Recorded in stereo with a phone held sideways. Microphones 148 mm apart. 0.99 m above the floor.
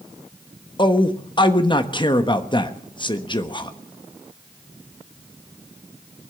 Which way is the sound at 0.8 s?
30° left (ahead or behind).